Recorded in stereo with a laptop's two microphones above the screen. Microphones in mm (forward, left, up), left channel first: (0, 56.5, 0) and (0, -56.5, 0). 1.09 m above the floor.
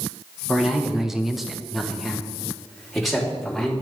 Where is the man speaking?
5° right (ahead or behind), 1.1 m; by 3.7 s centre (ahead or behind), 3.5 m.